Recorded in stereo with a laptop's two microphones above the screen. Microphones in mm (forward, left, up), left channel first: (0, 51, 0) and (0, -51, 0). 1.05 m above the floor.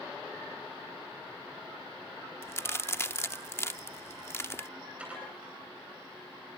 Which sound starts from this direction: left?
A crack, at 2.4 s.